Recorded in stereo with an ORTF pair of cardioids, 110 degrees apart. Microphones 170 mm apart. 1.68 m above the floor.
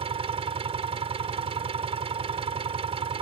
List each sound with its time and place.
0.0 s an engine running: 35° right